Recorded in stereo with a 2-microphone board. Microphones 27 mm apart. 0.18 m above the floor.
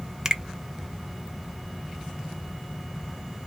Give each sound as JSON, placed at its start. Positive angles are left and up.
{"t": 0.2, "sound": "a finger snap", "side_deg": -20, "distance_m": 0.8}